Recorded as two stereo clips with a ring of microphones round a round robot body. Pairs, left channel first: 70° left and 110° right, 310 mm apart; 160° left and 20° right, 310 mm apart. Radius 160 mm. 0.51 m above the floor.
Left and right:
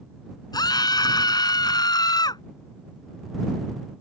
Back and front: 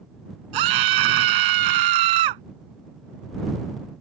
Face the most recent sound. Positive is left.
turn(degrees=-10)